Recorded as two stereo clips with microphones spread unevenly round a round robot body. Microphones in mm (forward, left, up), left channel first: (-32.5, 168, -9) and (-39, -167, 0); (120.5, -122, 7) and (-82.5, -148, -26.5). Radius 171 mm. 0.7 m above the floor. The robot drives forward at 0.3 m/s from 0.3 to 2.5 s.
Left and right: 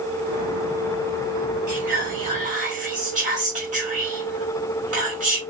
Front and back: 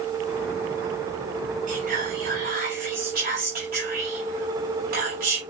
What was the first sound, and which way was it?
Whispering, 150° right.